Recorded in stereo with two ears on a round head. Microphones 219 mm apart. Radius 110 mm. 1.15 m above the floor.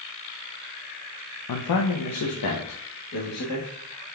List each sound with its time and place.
1.5 s a man speaking: 85° left, 0.6 m; by 3.7 s 75° left (ahead or behind), 1.7 m